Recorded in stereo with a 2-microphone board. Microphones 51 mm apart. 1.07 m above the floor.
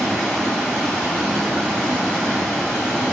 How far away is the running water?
About 3.5 m.